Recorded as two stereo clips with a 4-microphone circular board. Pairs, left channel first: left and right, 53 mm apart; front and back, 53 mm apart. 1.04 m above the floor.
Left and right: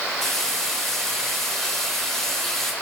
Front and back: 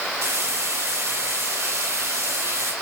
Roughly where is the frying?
Behind.